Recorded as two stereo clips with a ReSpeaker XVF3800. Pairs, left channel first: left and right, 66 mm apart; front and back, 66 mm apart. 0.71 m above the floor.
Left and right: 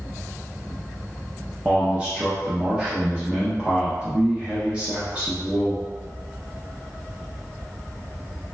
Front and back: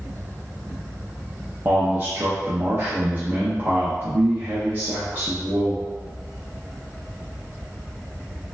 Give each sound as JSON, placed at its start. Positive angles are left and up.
{"t": 1.6, "sound": "a man speaking", "azimuth_deg": -155, "distance_m": 0.7}